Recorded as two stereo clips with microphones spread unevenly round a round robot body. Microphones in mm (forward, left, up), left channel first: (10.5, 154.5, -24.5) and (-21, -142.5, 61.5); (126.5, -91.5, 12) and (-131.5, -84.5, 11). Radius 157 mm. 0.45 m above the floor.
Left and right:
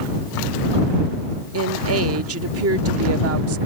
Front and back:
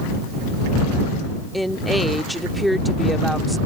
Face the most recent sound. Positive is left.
turn(degrees=-90)